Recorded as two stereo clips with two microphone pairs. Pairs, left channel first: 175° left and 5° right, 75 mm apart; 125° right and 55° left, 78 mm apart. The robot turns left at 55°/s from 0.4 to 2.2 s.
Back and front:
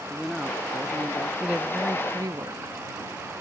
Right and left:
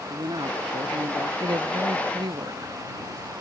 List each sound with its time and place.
0.1 s a man speaking: 85° left; by 1.3 s 35° left
1.4 s a woman speaking: 80° left; by 3.3 s 35° left